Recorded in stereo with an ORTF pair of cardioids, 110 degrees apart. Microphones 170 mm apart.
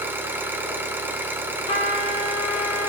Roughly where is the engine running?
Ahead.